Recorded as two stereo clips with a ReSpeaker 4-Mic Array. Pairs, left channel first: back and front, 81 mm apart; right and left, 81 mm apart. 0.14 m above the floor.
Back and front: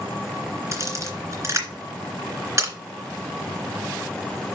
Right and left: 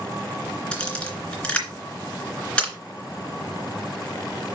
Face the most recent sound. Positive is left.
turn(degrees=-20)